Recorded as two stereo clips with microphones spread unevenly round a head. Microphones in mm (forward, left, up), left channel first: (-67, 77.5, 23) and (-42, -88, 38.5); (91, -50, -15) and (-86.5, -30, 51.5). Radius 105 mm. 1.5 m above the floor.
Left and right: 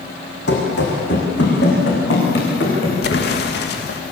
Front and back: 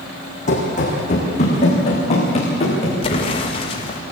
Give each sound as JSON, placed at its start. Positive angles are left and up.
{"t": 0.5, "sound": "running footsteps", "azimuth_deg": 55, "distance_m": 5.0}
{"t": 3.0, "sound": "an explosion", "azimuth_deg": 60, "distance_m": 1.9}